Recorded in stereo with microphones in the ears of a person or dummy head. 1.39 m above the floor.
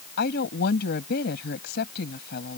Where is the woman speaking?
55° left (ahead or behind).